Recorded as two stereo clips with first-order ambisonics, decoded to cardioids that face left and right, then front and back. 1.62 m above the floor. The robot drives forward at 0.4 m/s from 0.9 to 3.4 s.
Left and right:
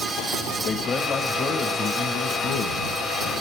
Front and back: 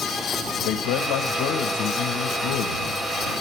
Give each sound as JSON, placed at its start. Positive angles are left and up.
{"t": 0.6, "sound": "a man speaking", "azimuth_deg": 20, "distance_m": 1.8}